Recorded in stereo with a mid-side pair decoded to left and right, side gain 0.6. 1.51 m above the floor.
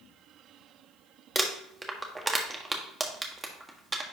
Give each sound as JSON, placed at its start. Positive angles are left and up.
{"t": 1.4, "sound": "crumpling", "azimuth_deg": -15, "distance_m": 1.3}